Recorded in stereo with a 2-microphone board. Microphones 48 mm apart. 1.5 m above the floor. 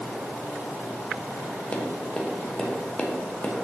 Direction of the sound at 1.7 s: 25° left (ahead or behind).